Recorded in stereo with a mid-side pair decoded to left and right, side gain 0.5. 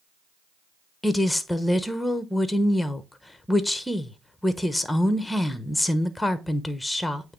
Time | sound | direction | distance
1.0 | a woman speaking | 5° left | 1.1 m